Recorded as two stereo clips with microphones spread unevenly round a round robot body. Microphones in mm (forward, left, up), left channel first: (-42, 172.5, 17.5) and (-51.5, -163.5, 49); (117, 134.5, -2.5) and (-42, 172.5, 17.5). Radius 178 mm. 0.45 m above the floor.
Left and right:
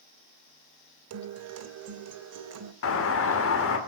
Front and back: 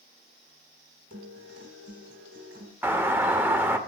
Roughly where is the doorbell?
Left.